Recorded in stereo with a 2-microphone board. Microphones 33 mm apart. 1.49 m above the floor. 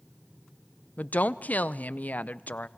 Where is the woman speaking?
55° left (ahead or behind), 0.6 m.